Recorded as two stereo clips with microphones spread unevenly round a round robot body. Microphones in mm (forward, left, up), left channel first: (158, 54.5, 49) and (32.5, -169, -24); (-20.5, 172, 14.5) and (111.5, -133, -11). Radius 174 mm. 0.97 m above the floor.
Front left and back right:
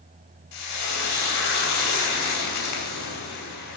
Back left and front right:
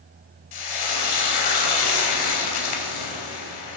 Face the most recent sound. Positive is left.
turn(degrees=100)